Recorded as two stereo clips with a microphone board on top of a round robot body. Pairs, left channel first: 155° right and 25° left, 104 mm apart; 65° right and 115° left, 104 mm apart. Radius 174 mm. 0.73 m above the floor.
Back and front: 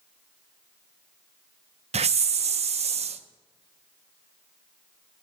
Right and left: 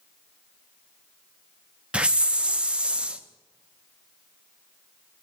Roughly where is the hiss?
Ahead left.